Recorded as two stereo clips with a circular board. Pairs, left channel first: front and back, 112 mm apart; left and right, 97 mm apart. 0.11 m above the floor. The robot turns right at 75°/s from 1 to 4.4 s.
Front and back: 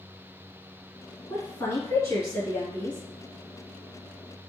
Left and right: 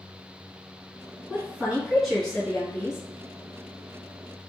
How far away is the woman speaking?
About 1.8 m.